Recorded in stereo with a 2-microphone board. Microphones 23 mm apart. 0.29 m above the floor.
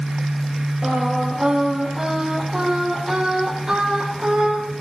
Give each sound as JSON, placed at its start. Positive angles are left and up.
{"t": 0.8, "sound": "singing", "side_deg": -30, "distance_m": 6.5}